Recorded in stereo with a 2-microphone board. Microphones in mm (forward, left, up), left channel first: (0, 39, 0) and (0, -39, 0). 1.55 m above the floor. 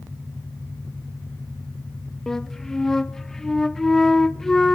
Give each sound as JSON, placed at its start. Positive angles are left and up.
{"t": 2.3, "sound": "a flute", "side_deg": 5, "distance_m": 0.6}